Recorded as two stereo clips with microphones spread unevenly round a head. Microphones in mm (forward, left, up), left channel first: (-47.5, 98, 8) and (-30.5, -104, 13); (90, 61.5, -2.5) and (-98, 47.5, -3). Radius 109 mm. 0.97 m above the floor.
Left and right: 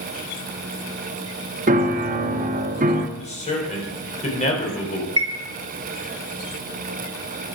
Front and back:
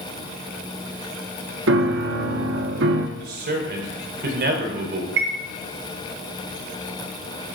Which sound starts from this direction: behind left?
A man speaking, at 3.2 s.